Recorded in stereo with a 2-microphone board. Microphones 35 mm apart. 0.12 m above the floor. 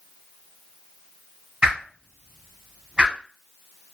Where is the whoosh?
25° right (ahead or behind), 1.1 m.